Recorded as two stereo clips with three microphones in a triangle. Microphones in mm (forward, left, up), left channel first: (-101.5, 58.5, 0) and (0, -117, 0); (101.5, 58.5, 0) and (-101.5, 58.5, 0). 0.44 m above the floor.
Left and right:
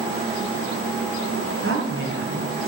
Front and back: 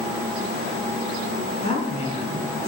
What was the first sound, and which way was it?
A woman speaking, 60° right.